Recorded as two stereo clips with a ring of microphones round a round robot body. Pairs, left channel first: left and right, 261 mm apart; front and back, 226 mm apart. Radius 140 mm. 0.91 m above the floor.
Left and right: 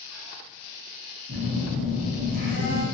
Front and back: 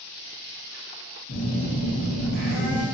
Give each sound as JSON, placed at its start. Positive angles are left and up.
{"t": 1.3, "sound": "a phone buzzing", "azimuth_deg": -35, "distance_m": 0.9}